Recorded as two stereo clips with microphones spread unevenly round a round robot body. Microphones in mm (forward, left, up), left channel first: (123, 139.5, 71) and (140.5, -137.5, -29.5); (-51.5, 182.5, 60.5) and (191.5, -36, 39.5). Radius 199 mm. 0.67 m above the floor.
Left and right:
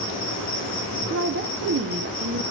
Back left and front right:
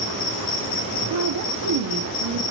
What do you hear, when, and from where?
0.0 s an insect: 160° left, 3.5 m
1.1 s a woman speaking: 70° right, 1.4 m